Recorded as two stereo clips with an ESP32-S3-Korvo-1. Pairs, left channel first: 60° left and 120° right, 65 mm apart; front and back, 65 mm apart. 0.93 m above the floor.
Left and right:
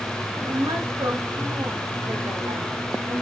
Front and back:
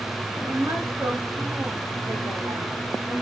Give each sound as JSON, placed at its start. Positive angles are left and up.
{"t": 0.4, "sound": "a woman speaking", "azimuth_deg": -130, "distance_m": 1.1}